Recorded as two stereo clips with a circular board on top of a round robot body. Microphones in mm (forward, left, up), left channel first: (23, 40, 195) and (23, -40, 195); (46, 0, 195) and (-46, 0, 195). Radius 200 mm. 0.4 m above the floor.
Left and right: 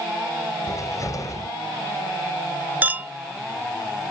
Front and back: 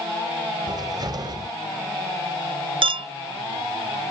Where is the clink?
160° right.